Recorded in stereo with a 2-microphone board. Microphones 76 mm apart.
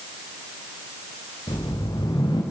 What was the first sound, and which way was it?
A whoosh, 70° left (ahead or behind).